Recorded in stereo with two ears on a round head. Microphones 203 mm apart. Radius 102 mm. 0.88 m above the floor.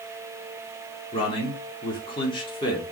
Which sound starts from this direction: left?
A man speaking, at 1.1 s.